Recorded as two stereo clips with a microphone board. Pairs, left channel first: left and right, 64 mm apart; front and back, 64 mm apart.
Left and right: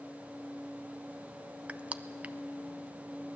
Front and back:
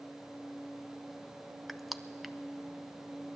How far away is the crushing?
About 0.5 m.